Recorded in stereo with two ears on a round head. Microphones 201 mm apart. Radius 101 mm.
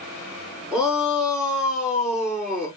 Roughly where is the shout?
Centre.